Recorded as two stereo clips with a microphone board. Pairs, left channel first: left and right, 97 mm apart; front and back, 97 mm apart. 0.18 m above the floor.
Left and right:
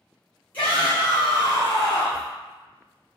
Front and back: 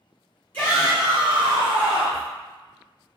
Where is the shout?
45° left, 1.7 m; by 2.3 s 150° left, 2 m.